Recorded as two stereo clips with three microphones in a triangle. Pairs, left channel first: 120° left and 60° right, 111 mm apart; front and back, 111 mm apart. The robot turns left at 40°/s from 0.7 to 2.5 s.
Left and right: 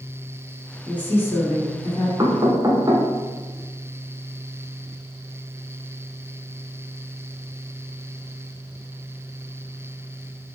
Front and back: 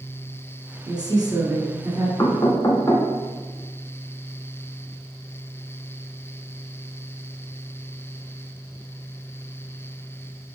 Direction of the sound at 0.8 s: 165° right.